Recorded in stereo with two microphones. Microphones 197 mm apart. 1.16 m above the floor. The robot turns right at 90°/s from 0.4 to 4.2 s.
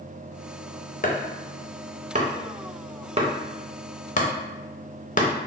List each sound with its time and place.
1.0 s chopping: 45° left (ahead or behind), 0.5 m; by 5.3 s 40° left (ahead or behind), 0.5 m